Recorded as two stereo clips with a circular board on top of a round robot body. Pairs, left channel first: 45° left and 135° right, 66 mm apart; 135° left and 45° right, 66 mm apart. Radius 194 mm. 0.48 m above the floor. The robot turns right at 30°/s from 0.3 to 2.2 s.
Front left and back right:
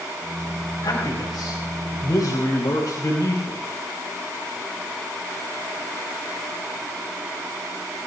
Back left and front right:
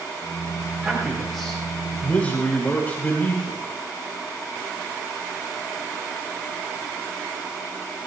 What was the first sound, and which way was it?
A man speaking, 25° left.